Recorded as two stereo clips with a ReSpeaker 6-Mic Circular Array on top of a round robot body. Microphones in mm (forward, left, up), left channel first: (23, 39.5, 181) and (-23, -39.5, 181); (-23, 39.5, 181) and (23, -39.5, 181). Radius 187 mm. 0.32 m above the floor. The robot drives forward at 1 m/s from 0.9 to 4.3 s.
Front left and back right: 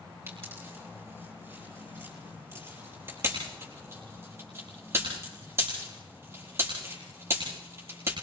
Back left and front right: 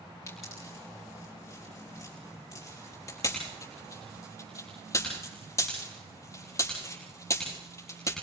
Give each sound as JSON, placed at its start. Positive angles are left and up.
{"t": 0.3, "sound": "a pop", "azimuth_deg": 175, "distance_m": 6.5}